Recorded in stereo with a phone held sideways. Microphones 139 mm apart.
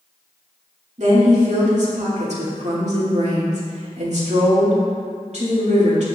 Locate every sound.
1.0 s a woman speaking: 55° right (ahead or behind), 2.5 m